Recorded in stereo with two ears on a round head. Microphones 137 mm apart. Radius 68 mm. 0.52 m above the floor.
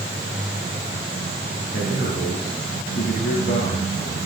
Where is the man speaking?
75° left (ahead or behind), 6.5 m.